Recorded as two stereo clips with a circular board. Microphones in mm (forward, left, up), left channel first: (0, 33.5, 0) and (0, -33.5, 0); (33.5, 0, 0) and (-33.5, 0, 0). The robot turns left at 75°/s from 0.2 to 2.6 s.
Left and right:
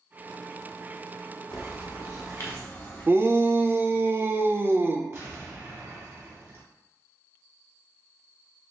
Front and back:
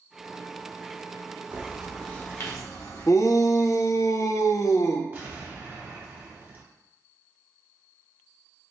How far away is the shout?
About 0.5 m.